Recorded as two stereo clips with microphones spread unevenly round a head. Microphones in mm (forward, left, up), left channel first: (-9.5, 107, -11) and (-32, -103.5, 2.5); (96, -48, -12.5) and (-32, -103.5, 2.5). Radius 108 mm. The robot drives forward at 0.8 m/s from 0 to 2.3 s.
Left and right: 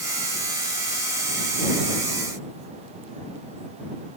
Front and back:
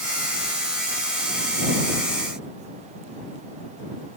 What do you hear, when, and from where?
Only background noise.